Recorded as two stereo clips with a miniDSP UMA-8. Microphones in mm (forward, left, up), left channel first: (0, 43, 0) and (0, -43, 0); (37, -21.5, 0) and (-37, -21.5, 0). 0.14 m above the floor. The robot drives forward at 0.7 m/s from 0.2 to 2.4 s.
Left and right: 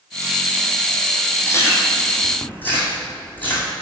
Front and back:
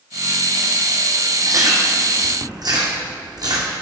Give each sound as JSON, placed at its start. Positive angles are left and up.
{"t": 1.5, "sound": "chewing", "azimuth_deg": 145, "distance_m": 1.2}